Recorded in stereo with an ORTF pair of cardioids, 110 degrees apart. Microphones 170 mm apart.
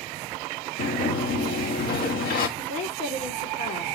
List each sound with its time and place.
0.8 s a sliding door: 60° left, 1.7 m
2.6 s a woman speaking: 65° left, 2.5 m